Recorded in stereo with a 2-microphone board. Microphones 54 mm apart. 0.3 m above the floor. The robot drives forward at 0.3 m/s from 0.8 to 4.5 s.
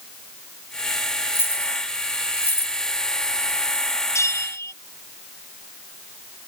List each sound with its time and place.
1.3 s keys jangling: 45° left (ahead or behind); by 2.8 s 50° left (ahead or behind)
4.2 s a bell: 65° left (ahead or behind)